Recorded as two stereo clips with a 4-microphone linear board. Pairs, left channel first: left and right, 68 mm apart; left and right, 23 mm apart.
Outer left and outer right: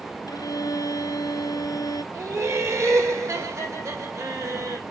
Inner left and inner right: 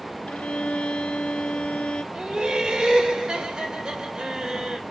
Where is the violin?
75° left (ahead or behind), 1.0 m.